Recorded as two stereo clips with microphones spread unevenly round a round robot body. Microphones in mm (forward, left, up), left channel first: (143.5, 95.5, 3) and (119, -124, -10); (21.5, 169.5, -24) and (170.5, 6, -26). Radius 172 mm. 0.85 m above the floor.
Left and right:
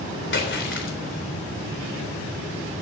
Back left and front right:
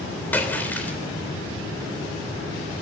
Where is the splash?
50° left, 3.5 m.